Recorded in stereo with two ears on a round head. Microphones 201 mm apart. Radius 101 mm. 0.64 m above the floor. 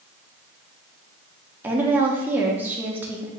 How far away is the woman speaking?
About 0.8 m.